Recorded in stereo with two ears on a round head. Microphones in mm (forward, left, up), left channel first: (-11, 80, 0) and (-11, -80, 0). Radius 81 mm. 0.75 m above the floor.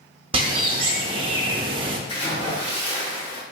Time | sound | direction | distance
0.3 | a bird | 30° right (ahead or behind) | 0.6 m
2.1 | a splash | 30° left (ahead or behind) | 1.0 m